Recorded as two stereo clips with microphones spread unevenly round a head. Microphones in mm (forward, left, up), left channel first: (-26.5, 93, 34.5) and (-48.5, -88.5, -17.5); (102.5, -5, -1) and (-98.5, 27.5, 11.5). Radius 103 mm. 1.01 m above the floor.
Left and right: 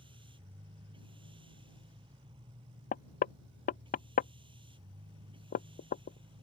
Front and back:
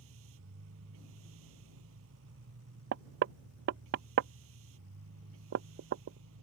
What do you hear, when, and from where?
0.0 s a machine running: 160° right
2.9 s knocking: 130° left